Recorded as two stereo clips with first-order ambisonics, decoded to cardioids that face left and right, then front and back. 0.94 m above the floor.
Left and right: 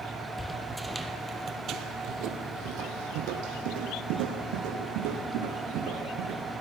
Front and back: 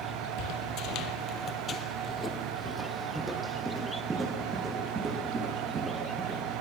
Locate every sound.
0.4 s footsteps: 5° left, 1.5 m; by 6.4 s 115° right, 4.5 m